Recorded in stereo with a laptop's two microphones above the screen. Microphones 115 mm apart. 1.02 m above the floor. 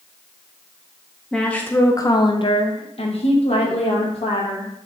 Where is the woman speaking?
5° left (ahead or behind), 0.7 m; by 4.7 s 55° left (ahead or behind), 1.6 m.